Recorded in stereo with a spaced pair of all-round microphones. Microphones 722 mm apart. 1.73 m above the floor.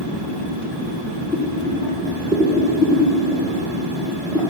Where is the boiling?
5° left (ahead or behind), 2 m.